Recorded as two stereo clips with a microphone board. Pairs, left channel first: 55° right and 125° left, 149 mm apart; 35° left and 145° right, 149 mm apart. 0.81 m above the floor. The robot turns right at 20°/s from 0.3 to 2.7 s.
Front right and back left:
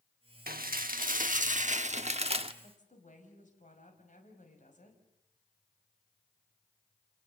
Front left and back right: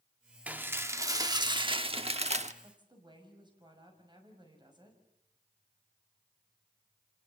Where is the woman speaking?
90° right, 5.5 m; by 5.0 s 85° right, 5.5 m.